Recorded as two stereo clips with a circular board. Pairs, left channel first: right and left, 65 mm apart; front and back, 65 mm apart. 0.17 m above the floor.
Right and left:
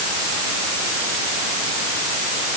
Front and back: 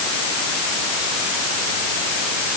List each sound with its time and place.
Only background noise.